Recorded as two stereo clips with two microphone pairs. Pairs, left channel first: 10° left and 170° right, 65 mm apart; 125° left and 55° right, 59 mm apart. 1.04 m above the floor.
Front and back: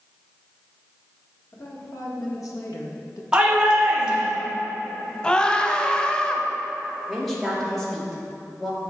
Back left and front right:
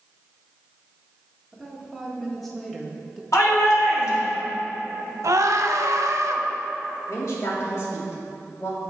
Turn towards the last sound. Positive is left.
turn(degrees=100)